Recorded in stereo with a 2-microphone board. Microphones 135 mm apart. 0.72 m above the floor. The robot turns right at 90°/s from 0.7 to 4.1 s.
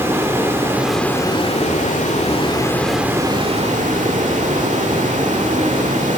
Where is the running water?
20° right, 2 m; by 6.2 s 75° right, 2 m.